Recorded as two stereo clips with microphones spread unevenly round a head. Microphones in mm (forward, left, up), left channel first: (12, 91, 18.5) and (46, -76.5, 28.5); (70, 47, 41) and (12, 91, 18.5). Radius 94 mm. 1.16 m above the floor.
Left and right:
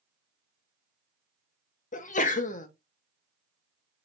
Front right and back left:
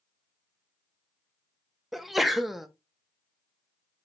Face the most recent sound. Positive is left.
turn(degrees=65)